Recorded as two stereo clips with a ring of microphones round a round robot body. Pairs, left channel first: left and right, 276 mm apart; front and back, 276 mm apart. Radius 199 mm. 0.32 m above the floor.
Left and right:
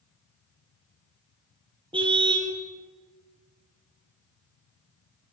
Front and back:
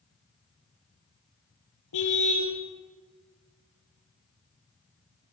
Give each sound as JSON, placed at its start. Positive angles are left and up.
{"t": 1.9, "sound": "a car horn", "azimuth_deg": -20, "distance_m": 5.5}